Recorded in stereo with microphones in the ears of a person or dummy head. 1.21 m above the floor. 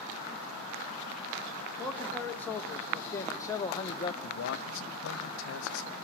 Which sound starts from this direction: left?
A man speaking, at 4.2 s.